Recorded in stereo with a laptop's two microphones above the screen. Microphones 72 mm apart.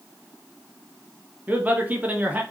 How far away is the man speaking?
About 0.8 m.